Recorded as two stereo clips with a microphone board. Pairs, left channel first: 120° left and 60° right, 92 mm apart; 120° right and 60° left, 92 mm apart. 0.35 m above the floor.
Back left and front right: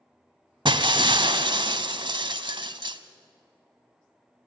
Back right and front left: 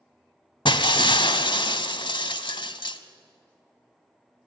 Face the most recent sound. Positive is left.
turn(degrees=-90)